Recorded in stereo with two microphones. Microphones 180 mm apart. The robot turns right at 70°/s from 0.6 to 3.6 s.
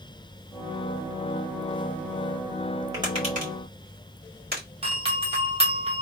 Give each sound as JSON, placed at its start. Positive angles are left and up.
{"t": 2.9, "sound": "tapping", "side_deg": -20, "distance_m": 2.0}
{"t": 4.8, "sound": "a doorbell", "side_deg": -35, "distance_m": 1.2}